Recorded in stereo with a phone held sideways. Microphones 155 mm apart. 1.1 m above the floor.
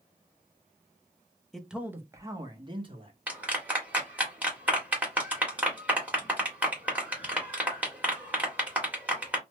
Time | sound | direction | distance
1.5 | a man speaking | centre (ahead or behind) | 0.7 m
3.3 | a clap | 10° right (ahead or behind) | 1.4 m